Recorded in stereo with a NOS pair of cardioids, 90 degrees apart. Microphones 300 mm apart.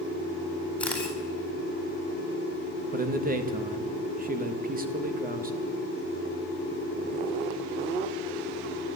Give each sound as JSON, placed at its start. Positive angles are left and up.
{"t": 0.8, "sound": "a camera shutter", "azimuth_deg": 5, "distance_m": 9.0}
{"t": 2.9, "sound": "a man speaking", "azimuth_deg": -30, "distance_m": 2.0}